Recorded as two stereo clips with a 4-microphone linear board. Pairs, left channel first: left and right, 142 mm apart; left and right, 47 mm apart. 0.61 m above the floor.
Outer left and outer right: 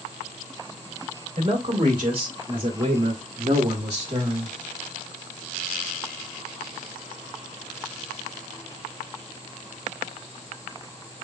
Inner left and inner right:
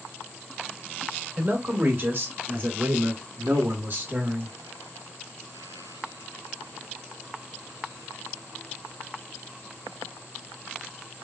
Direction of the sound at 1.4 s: 35° right (ahead or behind).